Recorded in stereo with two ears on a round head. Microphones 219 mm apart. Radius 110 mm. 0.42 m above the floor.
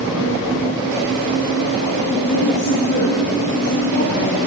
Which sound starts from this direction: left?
A woman speaking, at 2.1 s.